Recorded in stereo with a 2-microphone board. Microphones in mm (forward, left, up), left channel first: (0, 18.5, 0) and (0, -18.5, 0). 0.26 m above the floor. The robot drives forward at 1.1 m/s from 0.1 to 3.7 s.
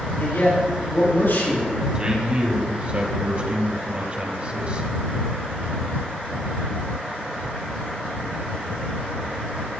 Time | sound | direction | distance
0.2 | a man speaking | 70° left (ahead or behind) | 7 m
1.9 | a man speaking | 25° right (ahead or behind) | 2.5 m